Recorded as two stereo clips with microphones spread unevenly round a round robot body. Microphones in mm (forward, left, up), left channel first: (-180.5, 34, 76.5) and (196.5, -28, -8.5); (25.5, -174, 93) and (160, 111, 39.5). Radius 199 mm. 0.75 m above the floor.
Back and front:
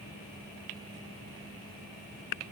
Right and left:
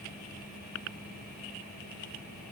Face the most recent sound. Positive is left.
No sound to turn to.